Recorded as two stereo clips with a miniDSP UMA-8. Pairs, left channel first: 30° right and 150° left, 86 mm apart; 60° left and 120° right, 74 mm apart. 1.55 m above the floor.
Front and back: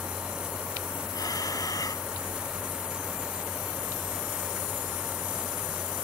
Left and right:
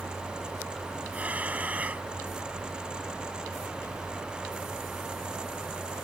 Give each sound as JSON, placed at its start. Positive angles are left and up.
{"t": 1.1, "sound": "breathing", "azimuth_deg": -55}